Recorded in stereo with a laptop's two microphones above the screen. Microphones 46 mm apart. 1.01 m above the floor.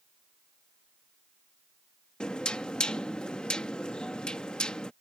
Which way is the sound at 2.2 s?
20° left (ahead or behind).